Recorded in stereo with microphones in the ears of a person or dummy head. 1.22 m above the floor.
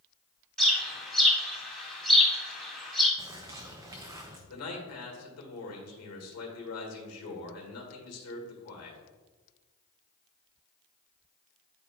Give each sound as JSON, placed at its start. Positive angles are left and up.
{"t": 0.6, "sound": "a bird", "side_deg": 5, "distance_m": 1.4}
{"t": 3.2, "sound": "a bird", "side_deg": -15, "distance_m": 0.6}
{"t": 4.5, "sound": "a man speaking", "side_deg": 75, "distance_m": 1.8}